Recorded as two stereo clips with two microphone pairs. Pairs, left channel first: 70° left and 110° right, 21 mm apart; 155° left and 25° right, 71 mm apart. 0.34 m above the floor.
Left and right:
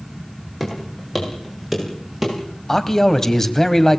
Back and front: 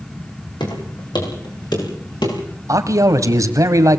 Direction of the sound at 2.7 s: 5° left.